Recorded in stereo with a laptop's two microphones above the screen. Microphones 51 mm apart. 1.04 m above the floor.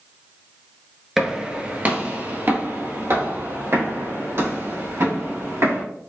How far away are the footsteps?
About 1.0 m.